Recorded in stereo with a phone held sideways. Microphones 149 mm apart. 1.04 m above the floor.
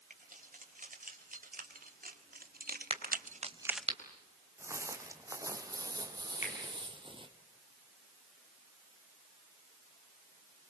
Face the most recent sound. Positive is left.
turn(degrees=50)  # may be behind; listen again after turning